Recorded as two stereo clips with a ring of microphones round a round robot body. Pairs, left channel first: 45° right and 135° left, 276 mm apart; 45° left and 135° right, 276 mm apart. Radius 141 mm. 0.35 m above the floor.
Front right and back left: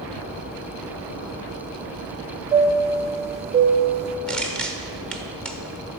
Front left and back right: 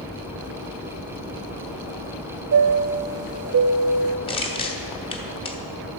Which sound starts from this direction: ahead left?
Crushing, at 4.3 s.